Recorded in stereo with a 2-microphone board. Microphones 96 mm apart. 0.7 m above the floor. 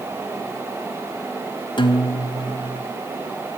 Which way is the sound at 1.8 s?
55° left (ahead or behind).